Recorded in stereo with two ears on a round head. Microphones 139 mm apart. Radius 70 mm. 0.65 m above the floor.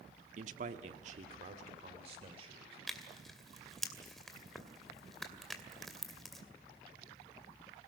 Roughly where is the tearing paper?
Centre.